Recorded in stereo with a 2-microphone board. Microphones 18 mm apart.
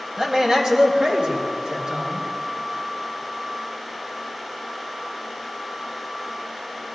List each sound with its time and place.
0.2 s a man speaking: 40° right (ahead or behind), 1.9 m; by 2.2 s 70° right (ahead or behind), 3.5 m